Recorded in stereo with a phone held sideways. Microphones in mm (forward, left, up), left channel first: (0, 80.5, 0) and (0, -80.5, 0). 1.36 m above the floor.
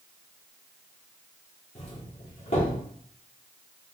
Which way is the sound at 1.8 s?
45° left (ahead or behind).